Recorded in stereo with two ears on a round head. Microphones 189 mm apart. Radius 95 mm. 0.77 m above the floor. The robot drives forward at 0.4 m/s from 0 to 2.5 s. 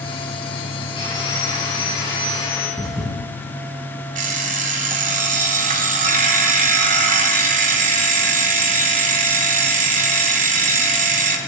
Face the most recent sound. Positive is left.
turn(degrees=-40)  # may be behind; listen again after turning